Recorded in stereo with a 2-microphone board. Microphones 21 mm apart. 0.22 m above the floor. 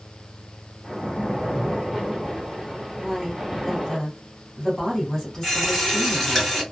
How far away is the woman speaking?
About 1.4 m.